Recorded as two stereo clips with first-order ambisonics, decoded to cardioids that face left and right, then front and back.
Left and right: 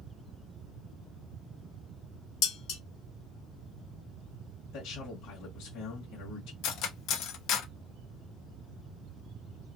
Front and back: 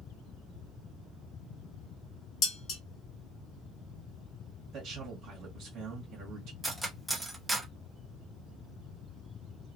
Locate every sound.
2.4 s dishes clattering: 55° left, 0.9 m
4.7 s a man speaking: 140° left, 1.2 m
6.6 s cutlery clinking: 95° left, 0.6 m